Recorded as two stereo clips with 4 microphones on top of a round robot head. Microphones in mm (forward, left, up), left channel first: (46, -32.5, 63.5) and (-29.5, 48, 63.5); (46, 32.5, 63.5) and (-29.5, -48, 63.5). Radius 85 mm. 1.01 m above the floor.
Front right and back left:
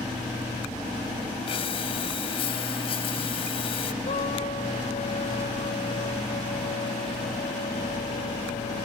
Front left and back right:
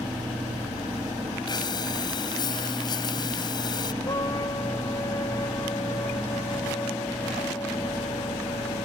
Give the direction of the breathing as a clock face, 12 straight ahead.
12 o'clock.